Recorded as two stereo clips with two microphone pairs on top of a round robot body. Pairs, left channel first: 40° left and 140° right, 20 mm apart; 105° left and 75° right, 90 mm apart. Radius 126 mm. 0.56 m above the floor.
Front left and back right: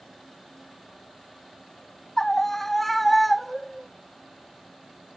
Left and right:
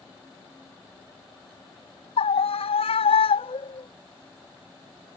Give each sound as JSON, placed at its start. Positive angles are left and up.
{"t": 2.2, "sound": "a scream", "azimuth_deg": 110}